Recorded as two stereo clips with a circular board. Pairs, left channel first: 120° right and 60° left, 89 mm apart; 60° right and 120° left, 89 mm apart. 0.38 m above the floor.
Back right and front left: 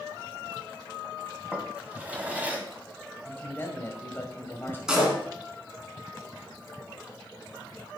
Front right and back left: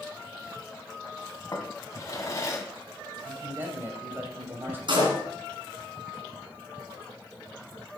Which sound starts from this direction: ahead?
A drawer, at 1.5 s.